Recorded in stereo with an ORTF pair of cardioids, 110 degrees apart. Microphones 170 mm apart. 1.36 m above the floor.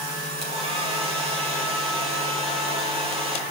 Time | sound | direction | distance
0.4 | a hair dryer | 35° right | 6.5 m